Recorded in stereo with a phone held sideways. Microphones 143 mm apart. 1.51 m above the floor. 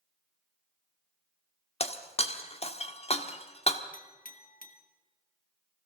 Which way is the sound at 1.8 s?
40° left (ahead or behind).